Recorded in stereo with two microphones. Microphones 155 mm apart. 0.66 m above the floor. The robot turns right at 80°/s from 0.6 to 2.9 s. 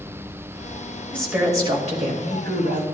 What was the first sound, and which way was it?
A woman speaking, 170° left.